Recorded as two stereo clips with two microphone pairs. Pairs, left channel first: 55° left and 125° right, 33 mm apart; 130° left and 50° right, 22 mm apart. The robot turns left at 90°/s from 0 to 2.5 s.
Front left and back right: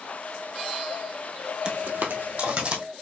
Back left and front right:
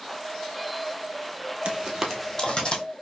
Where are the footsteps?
65° right, 0.9 m; by 2.8 s straight behind, 1.6 m.